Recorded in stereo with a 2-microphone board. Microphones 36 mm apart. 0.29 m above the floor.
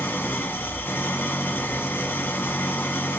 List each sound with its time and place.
0.0 s an engine running: 70° left (ahead or behind), 0.8 m